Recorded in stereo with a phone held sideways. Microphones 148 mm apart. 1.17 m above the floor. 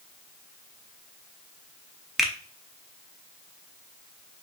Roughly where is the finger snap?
Centre.